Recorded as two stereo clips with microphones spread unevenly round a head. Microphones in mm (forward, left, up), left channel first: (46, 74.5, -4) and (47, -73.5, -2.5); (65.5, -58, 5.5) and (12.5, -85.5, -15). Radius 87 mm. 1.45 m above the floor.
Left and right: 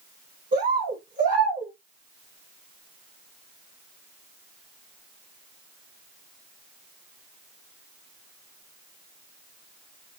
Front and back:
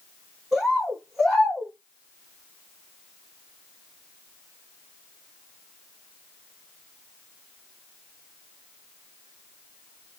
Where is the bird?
65° right, 3 m.